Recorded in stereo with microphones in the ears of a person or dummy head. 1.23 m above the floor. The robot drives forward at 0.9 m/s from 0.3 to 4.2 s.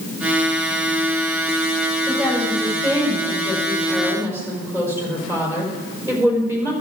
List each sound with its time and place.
2.1 s a woman speaking: 10° right (ahead or behind), 6.5 m; by 6.7 s 15° right (ahead or behind), 4.5 m